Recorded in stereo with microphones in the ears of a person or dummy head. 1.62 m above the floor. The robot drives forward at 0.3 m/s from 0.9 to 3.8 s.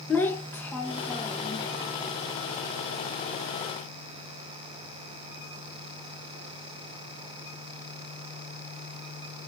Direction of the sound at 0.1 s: 5° left (ahead or behind).